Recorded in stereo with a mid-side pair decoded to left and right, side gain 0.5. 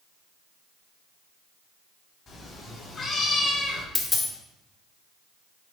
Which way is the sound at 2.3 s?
45° left.